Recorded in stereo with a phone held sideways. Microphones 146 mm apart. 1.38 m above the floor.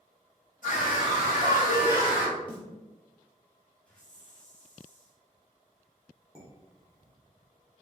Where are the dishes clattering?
20° left (ahead or behind), 1.1 m.